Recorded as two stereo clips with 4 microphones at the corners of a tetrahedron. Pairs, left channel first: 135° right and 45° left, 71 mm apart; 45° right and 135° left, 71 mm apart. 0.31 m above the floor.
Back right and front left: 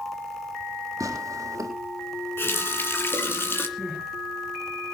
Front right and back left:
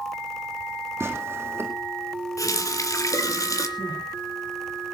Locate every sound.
1.0 s tearing paper: 80° left, 3.5 m
2.4 s a running tap: 80° right, 2.5 m
3.8 s crying: 50° right, 7 m